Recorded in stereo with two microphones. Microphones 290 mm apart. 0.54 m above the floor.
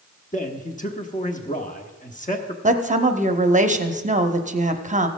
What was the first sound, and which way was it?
A man speaking, 25° left (ahead or behind).